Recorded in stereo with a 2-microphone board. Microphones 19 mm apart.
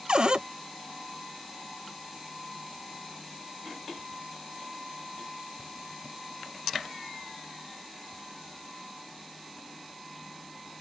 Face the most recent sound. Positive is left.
turn(degrees=-55)  # may be behind; listen again after turning